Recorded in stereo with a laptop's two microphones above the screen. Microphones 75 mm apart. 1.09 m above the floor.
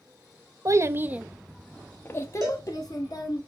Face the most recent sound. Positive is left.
turn(degrees=-65)  # may be behind; listen again after turning